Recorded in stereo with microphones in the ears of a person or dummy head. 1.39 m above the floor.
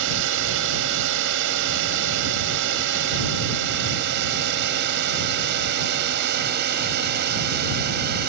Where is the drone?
70° right (ahead or behind); by 8.3 s 55° right (ahead or behind).